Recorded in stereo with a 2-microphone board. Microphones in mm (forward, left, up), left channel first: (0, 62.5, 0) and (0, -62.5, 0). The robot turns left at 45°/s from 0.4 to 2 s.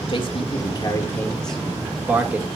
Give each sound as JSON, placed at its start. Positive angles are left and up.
{"t": 0.1, "sound": "a man speaking", "side_deg": 45, "distance_m": 2.0}